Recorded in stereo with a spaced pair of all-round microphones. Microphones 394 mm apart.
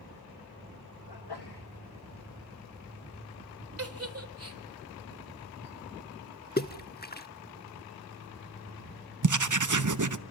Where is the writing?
50° right (ahead or behind), 0.7 m.